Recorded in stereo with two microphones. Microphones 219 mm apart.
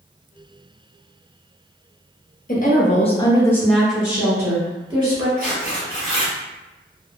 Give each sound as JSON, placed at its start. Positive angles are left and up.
{"t": 2.5, "sound": "a woman speaking", "side_deg": 40, "distance_m": 0.8}
{"t": 5.4, "sound": "tearing paper", "side_deg": 60, "distance_m": 2.0}